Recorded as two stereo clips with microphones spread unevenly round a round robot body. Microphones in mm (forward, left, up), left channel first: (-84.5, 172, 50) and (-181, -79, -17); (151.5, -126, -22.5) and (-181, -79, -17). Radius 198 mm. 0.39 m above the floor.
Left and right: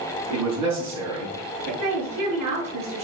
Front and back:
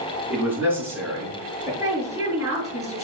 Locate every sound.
0.3 s a man speaking: 100° right, 5 m; by 1.7 s 110° right, 5.5 m
1.8 s a woman speaking: 105° right, 5.5 m